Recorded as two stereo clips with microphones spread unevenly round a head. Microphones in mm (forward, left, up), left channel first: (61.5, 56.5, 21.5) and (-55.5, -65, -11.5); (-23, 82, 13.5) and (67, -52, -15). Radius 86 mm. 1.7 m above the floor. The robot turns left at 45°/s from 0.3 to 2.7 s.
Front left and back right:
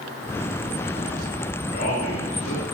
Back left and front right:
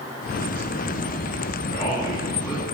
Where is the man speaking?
85° left, 3.5 m; by 2.6 s 40° left, 3.5 m.